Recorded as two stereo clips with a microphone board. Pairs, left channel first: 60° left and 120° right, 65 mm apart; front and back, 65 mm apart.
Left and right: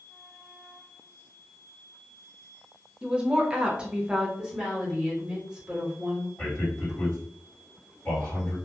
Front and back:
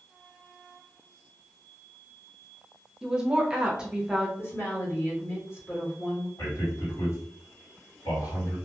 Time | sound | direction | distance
3.0 | a woman speaking | 145° right | 0.6 m
4.4 | a woman speaking | 45° right | 1.4 m
6.4 | a man speaking | 10° right | 1.9 m